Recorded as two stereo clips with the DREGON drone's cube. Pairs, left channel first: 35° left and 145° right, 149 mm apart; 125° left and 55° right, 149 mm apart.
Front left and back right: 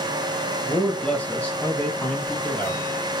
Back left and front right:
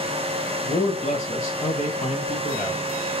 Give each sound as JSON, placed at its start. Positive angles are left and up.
{"t": 0.6, "sound": "a man speaking", "azimuth_deg": 120, "distance_m": 1.4}